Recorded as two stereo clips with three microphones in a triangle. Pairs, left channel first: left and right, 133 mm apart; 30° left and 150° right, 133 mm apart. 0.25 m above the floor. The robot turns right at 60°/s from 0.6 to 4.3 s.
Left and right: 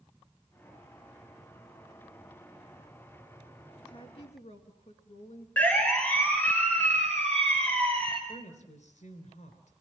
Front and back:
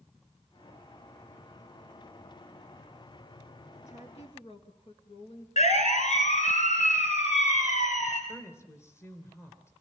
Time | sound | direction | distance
3.9 | a woman speaking | 40° left | 3.5 m
5.6 | a siren | 15° left | 3.5 m
8.3 | a woman speaking | 100° left | 3 m